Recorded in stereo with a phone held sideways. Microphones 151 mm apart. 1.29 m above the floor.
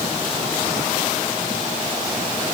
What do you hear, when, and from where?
Only background noise.